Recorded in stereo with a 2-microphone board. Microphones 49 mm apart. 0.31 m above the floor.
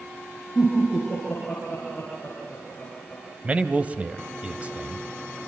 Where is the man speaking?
25° right (ahead or behind), 1.6 m.